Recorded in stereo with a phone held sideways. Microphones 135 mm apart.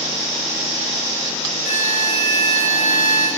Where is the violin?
65° left (ahead or behind), 2 m.